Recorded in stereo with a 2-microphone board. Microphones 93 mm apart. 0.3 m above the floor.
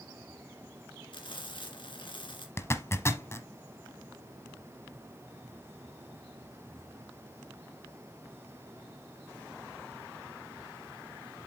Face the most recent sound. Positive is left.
turn(degrees=30)  # may be behind; listen again after turning